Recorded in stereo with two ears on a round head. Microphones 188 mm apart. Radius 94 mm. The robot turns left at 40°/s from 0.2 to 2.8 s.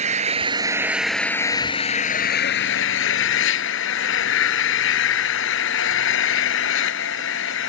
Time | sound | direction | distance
0.0 | an engine running | 145° right | ?